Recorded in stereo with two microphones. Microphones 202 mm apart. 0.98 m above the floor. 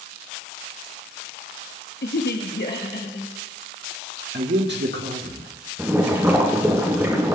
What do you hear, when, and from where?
2.0 s a woman speaking: 60° left (ahead or behind), 0.8 m; by 3.3 s 55° left (ahead or behind), 1.8 m
4.3 s a man speaking: 60° right (ahead or behind), 1.3 m
5.8 s boiling: 10° right (ahead or behind), 2.5 m